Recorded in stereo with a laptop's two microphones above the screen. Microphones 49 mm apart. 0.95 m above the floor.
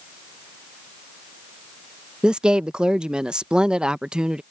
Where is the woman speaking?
20° right (ahead or behind).